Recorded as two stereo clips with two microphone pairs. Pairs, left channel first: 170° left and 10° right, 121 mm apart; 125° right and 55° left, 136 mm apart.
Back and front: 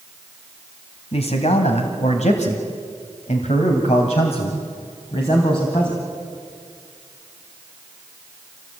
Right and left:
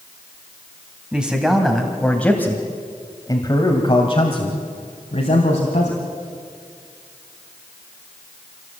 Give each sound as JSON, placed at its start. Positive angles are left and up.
{"t": 1.1, "sound": "a man speaking", "azimuth_deg": 140, "distance_m": 3.0}